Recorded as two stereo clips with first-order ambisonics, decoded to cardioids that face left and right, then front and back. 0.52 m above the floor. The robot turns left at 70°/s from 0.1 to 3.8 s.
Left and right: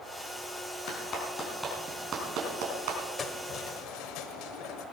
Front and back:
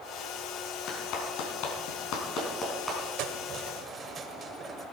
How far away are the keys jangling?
About 1.4 m.